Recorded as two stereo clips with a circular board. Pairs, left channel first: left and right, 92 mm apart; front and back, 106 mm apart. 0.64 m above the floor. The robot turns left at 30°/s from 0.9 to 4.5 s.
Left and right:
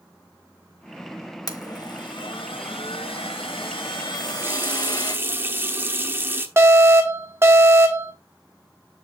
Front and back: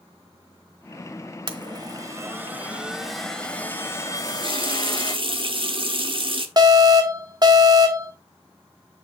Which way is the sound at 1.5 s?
140° left.